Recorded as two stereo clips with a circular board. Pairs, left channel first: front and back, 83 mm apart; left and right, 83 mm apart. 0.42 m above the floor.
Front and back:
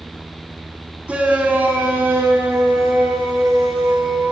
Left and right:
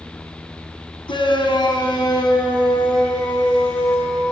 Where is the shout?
105° left, 3.5 m; by 4.3 s 130° left, 6.5 m.